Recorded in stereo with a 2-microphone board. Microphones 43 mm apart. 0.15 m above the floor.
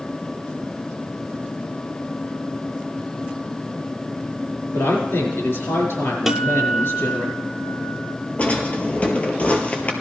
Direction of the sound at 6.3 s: 10° right (ahead or behind).